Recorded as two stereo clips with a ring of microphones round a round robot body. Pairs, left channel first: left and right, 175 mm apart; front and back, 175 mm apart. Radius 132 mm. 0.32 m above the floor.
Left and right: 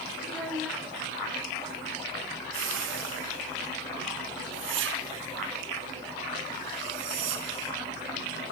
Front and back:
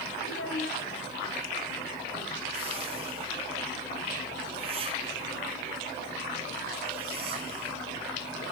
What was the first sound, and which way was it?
A child speaking, straight ahead.